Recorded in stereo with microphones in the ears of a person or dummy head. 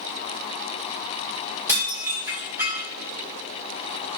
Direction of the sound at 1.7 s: 10° right (ahead or behind).